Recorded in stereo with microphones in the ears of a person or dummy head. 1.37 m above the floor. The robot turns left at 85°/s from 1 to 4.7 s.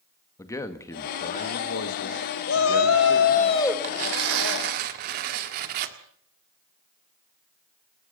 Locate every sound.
0.4 s a man speaking: 165° left, 2.0 m; by 3.5 s 45° right, 2.0 m
2.5 s a shout: 120° left, 2 m; by 3.7 s 10° left, 2 m
3.8 s tearing paper: 45° right, 1.5 m; by 6.0 s 120° right, 1.5 m